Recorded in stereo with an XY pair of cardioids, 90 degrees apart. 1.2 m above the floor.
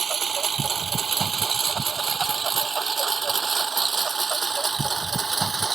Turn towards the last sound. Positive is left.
turn(degrees=-35)